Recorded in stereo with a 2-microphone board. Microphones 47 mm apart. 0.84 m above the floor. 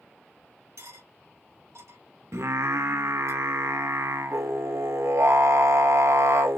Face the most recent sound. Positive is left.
turn(degrees=-75)  # may be behind; listen again after turning